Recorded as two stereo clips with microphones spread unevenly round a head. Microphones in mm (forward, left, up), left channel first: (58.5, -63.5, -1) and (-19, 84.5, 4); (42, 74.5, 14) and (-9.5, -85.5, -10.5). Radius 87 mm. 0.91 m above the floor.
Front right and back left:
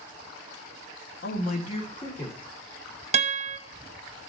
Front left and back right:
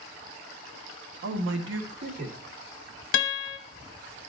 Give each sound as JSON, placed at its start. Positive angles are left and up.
{"t": 1.2, "sound": "a man speaking", "azimuth_deg": -95, "distance_m": 0.9}
{"t": 3.1, "sound": "a guitar", "azimuth_deg": 65, "distance_m": 0.9}